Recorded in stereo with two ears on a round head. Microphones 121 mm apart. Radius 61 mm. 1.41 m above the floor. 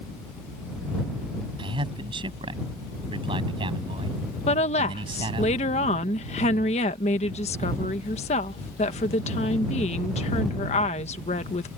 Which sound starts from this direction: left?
A woman speaking, at 4.5 s.